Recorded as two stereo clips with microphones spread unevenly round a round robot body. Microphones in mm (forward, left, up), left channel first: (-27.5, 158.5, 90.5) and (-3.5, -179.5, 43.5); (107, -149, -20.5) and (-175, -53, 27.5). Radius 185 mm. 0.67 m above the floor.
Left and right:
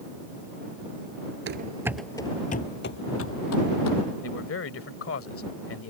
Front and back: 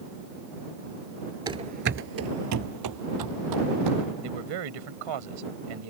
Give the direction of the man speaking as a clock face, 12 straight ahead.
7 o'clock.